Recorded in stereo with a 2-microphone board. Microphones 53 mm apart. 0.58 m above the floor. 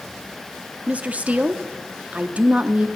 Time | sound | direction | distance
0.9 | a woman speaking | 25° right (ahead or behind) | 0.7 m